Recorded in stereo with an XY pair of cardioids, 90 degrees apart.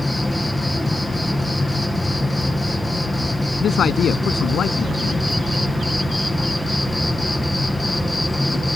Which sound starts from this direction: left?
A man speaking, at 3.6 s.